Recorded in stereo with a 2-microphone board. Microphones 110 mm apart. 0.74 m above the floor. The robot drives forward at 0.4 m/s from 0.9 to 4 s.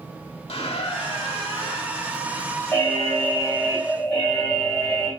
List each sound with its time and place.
0.5 s a squeak: 65° left (ahead or behind), 1.1 m; by 2.0 s 50° left (ahead or behind), 1.3 m
2.7 s an alarm: 20° left (ahead or behind), 1.5 m; by 5.1 s 15° left (ahead or behind), 1.9 m